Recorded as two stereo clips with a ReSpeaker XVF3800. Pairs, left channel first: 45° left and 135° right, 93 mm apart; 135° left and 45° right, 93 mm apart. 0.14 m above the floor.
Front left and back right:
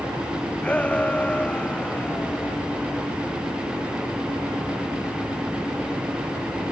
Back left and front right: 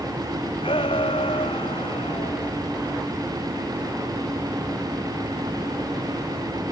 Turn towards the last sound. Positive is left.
turn(degrees=120)